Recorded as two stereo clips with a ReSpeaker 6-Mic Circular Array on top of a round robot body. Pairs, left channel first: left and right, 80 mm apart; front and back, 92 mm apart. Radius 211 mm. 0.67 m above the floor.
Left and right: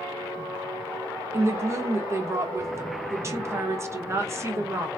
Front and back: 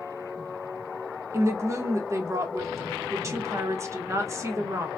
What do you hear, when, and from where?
1.3 s a woman speaking: 135° right, 0.9 m